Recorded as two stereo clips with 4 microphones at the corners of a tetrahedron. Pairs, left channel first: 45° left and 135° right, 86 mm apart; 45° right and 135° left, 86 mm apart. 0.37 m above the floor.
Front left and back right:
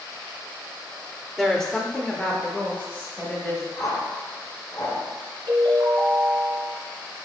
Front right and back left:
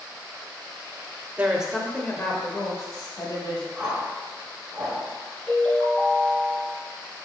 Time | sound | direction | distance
1.4 | a woman speaking | 125° left | 0.8 m
3.8 | a whoosh | 55° left | 1.7 m
5.5 | a ringtone | 115° right | 2.5 m